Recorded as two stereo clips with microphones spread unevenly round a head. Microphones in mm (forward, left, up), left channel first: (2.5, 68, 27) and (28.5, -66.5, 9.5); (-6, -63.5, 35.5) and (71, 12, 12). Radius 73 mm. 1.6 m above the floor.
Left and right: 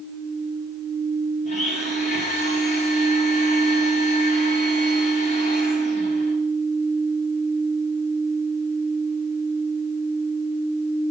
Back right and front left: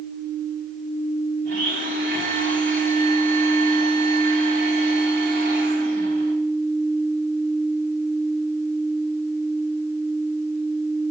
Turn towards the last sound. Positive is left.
turn(degrees=65)